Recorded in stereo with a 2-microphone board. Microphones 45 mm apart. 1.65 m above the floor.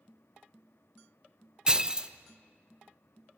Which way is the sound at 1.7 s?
20° right (ahead or behind).